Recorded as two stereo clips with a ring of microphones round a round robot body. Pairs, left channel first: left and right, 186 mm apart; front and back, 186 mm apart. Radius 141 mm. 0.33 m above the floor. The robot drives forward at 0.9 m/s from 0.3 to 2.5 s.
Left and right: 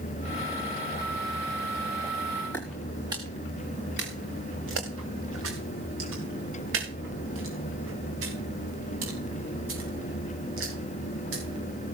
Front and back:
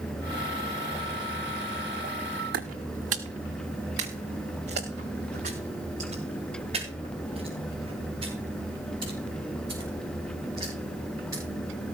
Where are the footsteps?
170° left, 1.5 m; by 11.4 s 100° right, 9 m.